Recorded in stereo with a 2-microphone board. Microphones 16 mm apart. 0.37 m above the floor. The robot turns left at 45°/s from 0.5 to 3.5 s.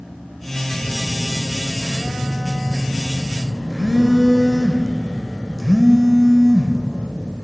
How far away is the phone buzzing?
About 0.7 m.